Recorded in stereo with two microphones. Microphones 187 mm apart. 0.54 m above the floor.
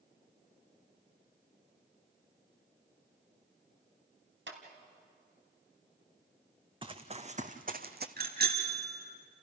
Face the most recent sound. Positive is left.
turn(degrees=-55)  # may be behind; listen again after turning